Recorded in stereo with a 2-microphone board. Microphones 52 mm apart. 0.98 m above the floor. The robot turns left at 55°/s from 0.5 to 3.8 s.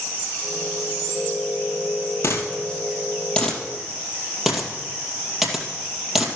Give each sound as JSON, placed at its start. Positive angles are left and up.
{"t": 2.2, "sound": "a dropped coin", "side_deg": 65, "distance_m": 2.0}